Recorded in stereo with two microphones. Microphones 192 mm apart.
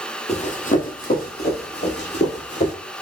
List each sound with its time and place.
0.3 s running footsteps: 35° left (ahead or behind), 1.0 m; by 2.7 s 65° left (ahead or behind), 2 m